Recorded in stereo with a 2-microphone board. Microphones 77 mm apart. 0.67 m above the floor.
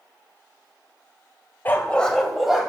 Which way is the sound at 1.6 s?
25° left (ahead or behind).